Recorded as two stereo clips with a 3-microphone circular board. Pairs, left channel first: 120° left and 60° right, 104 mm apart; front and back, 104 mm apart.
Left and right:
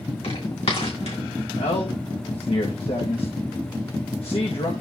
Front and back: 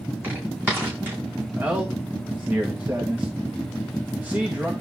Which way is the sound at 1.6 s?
105° left.